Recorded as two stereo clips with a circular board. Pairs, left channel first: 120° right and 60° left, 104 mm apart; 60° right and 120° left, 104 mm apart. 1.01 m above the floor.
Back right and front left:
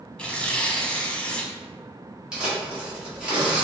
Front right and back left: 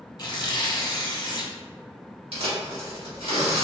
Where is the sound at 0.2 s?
45° right, 0.7 m.